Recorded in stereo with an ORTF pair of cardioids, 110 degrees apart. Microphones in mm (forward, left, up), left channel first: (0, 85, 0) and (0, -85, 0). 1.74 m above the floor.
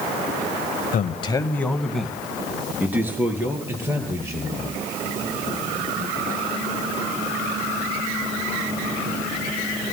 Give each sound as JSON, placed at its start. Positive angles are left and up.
{"t": 0.9, "sound": "a man speaking", "azimuth_deg": 55, "distance_m": 0.8}